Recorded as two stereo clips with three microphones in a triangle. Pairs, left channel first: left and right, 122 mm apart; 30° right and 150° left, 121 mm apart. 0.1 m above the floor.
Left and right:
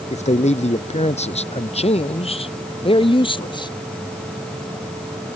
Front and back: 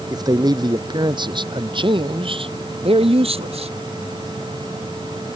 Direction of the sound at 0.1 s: 95° left.